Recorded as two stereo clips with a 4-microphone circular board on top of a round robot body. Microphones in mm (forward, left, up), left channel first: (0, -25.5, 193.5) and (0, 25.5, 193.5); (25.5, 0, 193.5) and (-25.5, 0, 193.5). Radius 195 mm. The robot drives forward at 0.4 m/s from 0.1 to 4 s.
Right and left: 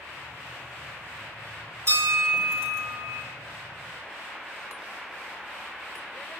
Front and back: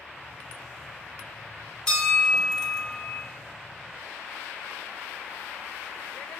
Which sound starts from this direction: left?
A bell, at 1.9 s.